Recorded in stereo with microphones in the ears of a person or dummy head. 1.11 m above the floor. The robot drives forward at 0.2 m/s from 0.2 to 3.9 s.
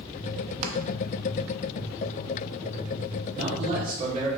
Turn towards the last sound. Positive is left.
turn(degrees=-40)  # may be behind; listen again after turning